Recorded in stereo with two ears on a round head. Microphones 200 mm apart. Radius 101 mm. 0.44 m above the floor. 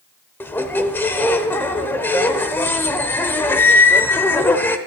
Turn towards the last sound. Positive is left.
turn(degrees=10)  # may be behind; listen again after turning